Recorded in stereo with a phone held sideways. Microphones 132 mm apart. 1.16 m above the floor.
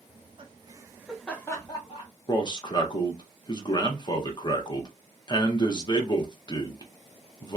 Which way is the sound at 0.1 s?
50° right (ahead or behind).